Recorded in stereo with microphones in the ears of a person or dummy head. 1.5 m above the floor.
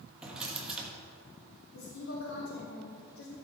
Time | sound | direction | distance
0.2 | a drawer | 5° right (ahead or behind) | 1.2 m
1.7 | a woman speaking | 85° left | 3 m